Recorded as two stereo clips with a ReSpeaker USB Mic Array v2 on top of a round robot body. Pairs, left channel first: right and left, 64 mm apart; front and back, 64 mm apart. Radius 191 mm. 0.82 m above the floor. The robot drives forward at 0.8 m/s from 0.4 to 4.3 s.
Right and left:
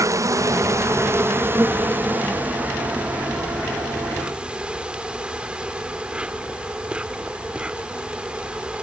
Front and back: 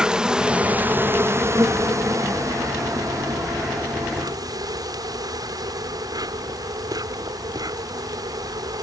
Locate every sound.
0.0 s an insect: 105° left; by 8.8 s 165° left